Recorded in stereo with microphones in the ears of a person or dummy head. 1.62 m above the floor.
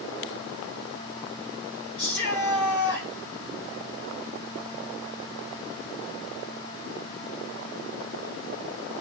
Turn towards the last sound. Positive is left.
turn(degrees=65)  # may be behind; listen again after turning